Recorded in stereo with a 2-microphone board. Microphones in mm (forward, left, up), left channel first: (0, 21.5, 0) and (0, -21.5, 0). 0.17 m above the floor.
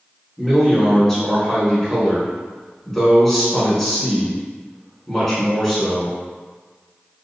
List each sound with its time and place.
0.4 s a man speaking: 5° left (ahead or behind), 1.4 m